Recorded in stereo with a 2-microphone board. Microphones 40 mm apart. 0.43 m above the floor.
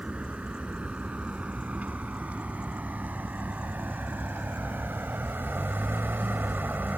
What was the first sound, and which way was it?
A vehicle, 35° right (ahead or behind).